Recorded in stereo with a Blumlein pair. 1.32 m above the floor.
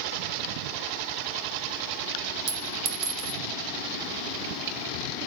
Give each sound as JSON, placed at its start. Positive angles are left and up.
{"t": 2.5, "sound": "a clink", "azimuth_deg": -35, "distance_m": 2.5}